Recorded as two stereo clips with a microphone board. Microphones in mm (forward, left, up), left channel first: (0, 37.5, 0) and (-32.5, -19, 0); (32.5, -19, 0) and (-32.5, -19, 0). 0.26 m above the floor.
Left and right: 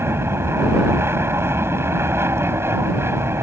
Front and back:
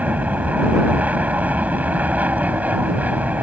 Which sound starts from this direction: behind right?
An aircraft, at 0.0 s.